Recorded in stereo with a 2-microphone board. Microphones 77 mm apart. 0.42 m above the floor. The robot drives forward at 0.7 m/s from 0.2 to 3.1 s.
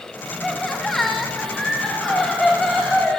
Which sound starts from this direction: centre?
Laughter, at 0.4 s.